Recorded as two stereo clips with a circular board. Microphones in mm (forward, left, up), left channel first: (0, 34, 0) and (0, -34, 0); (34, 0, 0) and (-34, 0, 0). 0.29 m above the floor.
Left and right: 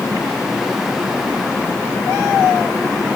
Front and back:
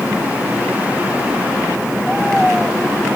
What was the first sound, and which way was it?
Only background noise.